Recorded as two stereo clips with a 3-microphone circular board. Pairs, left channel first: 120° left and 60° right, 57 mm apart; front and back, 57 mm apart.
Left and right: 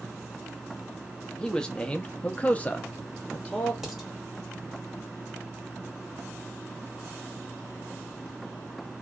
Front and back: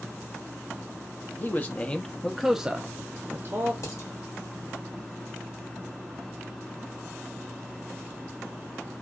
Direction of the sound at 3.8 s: 20° left.